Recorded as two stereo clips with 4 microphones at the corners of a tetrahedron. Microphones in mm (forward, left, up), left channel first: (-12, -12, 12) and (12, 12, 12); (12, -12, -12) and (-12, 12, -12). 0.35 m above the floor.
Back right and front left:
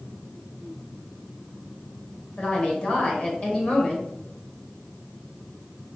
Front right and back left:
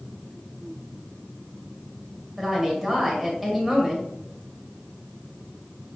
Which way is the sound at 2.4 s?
145° right.